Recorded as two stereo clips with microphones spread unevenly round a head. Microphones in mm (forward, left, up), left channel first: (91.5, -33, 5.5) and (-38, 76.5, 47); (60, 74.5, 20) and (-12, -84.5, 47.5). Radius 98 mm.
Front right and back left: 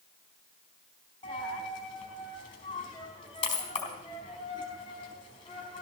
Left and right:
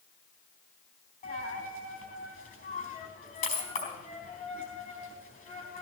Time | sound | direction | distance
1.2 | a dropped coin | 25° left | 4 m